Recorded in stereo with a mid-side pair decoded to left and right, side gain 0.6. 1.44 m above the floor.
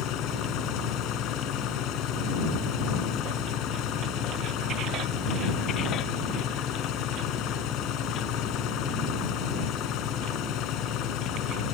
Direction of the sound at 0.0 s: 65° left.